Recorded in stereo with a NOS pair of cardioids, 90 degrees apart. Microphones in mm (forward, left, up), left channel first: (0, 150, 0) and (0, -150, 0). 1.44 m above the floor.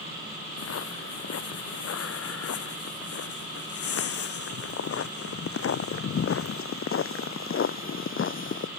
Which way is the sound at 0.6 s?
60° left.